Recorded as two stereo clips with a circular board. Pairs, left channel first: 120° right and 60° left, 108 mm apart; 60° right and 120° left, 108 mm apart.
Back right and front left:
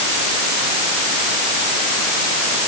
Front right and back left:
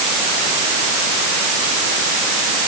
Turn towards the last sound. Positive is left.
No sound to turn to.